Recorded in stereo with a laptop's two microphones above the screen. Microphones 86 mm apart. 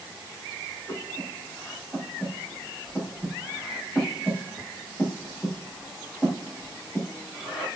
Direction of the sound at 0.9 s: 10° right (ahead or behind).